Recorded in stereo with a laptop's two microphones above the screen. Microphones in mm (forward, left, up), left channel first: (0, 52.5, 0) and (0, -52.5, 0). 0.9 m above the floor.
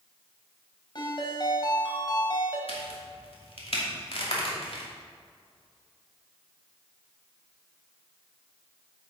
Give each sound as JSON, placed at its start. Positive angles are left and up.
{"t": 0.9, "sound": "a ringtone", "side_deg": 45, "distance_m": 2.5}
{"t": 2.7, "sound": "a crack", "side_deg": 65, "distance_m": 2.5}